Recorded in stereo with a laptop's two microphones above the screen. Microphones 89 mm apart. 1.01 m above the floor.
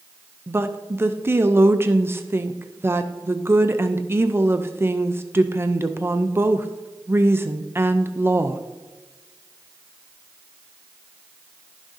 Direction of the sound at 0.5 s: 25° right (ahead or behind).